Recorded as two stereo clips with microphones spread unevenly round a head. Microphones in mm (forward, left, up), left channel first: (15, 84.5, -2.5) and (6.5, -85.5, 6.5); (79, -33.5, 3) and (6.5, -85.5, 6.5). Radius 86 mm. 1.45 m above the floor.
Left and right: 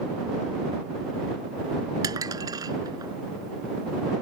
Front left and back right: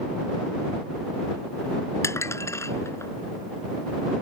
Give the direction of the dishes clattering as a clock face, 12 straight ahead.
1 o'clock.